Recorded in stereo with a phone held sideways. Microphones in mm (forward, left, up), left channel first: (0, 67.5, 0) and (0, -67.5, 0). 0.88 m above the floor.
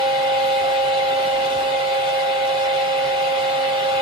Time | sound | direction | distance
0.0 | a fan | 35° right (ahead or behind) | 1.2 m